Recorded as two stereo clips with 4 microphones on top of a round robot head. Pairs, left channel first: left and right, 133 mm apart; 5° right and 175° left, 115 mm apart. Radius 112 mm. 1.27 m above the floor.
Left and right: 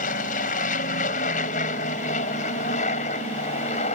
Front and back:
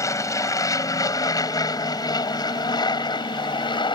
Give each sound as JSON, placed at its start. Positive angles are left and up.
{"t": 0.0, "sound": "an aircraft", "azimuth_deg": 60}